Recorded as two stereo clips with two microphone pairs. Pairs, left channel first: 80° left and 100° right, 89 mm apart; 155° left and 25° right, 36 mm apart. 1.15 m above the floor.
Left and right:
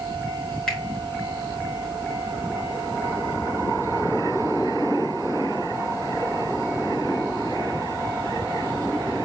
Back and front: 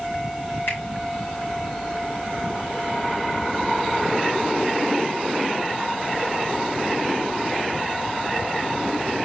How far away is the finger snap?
About 5 m.